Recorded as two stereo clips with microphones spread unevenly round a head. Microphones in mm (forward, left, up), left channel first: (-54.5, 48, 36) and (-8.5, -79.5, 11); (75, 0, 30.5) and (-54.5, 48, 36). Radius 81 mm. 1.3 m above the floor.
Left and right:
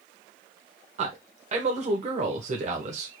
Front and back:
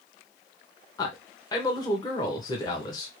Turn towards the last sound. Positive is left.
turn(degrees=-80)